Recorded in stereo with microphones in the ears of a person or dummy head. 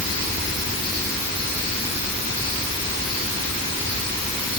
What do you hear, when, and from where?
Only background noise.